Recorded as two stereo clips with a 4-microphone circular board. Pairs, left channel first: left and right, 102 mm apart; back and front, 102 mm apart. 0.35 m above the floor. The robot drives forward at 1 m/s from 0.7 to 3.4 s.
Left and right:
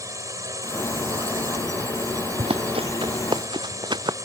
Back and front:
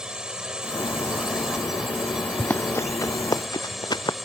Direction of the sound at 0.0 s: 75° right.